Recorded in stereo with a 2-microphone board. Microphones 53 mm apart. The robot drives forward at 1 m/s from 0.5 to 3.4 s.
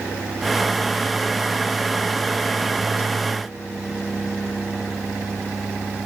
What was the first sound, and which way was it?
Only background noise.